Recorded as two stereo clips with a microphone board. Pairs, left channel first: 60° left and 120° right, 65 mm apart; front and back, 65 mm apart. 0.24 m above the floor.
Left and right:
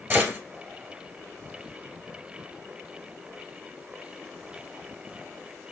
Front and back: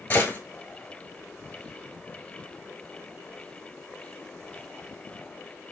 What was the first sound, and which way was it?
A gunshot, 60° right.